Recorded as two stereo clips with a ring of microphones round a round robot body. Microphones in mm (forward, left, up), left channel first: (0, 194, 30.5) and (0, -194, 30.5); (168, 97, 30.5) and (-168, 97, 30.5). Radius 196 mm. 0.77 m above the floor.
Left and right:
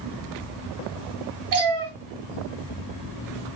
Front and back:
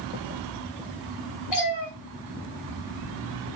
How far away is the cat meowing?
About 3 m.